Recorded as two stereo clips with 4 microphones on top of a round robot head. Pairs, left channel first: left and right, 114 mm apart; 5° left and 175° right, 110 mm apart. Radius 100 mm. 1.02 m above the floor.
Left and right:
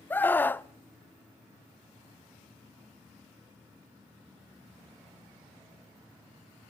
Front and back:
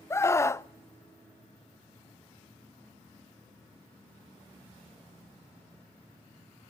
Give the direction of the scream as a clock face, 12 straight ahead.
11 o'clock.